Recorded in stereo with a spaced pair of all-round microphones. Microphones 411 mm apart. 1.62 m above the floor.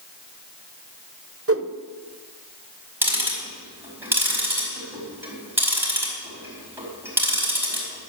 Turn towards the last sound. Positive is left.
turn(degrees=-5)  # may be behind; listen again after turning